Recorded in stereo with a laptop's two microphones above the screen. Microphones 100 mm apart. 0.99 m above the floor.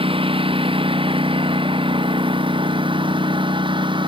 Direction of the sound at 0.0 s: 65° right (ahead or behind).